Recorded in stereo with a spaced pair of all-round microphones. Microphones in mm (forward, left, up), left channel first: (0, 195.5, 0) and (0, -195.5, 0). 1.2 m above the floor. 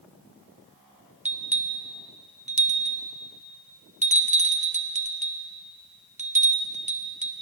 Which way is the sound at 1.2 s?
20° right (ahead or behind).